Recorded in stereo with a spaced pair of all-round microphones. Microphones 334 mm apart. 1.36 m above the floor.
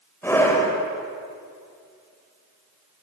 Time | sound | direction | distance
0.2 | a scream | 10° left (ahead or behind) | 6 m